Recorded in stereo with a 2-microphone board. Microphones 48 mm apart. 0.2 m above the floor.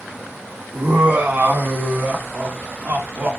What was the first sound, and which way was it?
Laughter, 35° right (ahead or behind).